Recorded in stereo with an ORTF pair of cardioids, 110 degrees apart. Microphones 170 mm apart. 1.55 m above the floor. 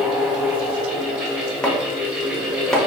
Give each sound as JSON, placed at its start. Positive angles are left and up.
{"t": 0.0, "sound": "a fan", "azimuth_deg": -10, "distance_m": 1.4}
{"t": 1.6, "sound": "chopping", "azimuth_deg": 5, "distance_m": 1.0}